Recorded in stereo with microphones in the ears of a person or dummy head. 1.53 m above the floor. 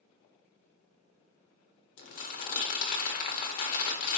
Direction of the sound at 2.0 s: 40° left (ahead or behind).